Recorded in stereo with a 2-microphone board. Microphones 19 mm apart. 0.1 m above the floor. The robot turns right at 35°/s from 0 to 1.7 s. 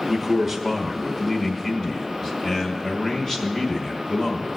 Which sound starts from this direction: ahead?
A man speaking, at 0.1 s.